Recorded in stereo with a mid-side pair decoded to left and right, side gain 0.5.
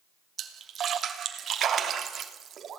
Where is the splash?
50° right, 3 m.